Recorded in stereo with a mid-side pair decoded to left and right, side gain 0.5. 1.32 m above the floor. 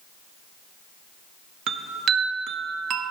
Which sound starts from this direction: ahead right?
A chime, at 1.7 s.